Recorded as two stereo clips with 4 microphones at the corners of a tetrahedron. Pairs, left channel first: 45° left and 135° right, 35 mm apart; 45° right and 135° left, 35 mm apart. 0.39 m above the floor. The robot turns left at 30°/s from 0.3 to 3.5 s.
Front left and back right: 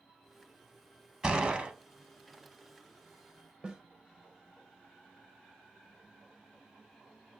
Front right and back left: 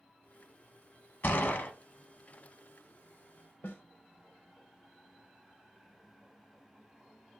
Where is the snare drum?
70° right, 0.6 m.